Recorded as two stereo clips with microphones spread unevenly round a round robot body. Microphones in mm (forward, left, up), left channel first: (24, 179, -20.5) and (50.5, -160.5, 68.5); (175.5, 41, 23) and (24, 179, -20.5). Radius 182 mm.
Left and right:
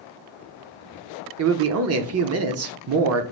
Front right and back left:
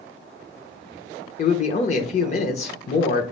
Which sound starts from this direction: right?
A man speaking, at 1.4 s.